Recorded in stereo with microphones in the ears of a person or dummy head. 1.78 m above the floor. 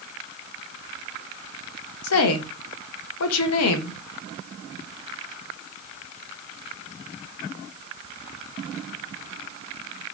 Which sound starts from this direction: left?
A woman speaking, at 2.0 s.